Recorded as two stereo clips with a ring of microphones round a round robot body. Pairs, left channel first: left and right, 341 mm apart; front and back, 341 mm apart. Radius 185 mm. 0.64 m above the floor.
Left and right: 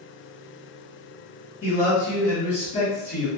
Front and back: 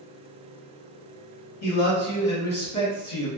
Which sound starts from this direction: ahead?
A man speaking, at 1.6 s.